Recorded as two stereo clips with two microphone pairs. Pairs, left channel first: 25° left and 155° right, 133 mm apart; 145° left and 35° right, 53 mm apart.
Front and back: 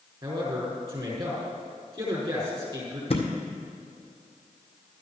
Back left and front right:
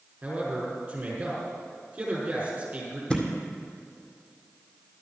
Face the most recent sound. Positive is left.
turn(degrees=70)